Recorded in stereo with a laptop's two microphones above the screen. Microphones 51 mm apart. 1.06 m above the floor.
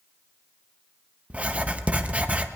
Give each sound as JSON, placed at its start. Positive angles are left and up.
{"t": 1.3, "sound": "writing", "side_deg": -30, "distance_m": 0.5}